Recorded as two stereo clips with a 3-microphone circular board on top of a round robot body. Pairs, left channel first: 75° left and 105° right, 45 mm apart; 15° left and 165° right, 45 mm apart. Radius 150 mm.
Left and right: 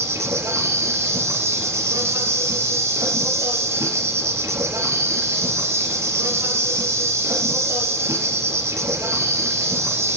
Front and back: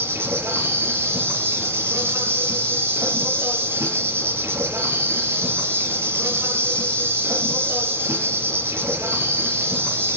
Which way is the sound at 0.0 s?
130° right.